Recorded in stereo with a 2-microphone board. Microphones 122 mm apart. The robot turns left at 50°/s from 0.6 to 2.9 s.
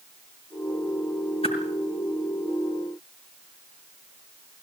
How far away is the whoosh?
About 5 m.